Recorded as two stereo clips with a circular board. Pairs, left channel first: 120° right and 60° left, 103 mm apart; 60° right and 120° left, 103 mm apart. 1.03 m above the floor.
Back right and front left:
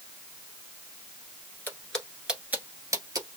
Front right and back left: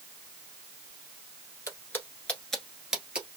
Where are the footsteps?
75° right, 1.1 m; by 3.3 s 45° left, 1.3 m.